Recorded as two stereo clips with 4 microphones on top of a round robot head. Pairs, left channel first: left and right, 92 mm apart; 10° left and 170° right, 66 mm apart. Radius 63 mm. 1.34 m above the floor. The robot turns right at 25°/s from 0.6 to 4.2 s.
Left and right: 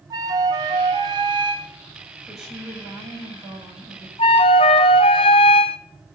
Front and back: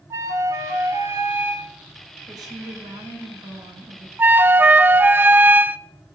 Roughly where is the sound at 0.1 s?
Behind right.